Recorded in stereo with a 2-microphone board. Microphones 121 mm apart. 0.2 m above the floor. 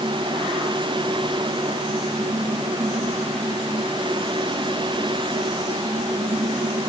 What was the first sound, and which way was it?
Only background noise.